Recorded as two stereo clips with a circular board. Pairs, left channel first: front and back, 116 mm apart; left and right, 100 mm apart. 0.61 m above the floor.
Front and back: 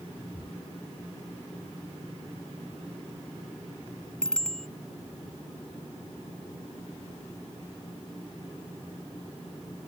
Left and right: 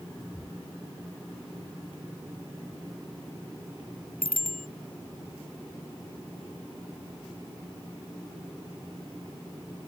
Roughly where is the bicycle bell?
Right.